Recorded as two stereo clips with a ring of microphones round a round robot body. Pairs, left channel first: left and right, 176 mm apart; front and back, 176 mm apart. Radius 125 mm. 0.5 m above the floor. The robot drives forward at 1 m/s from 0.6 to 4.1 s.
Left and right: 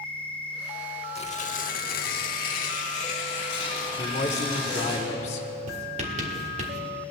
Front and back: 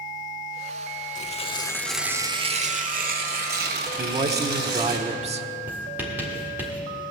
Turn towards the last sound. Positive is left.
turn(degrees=-105)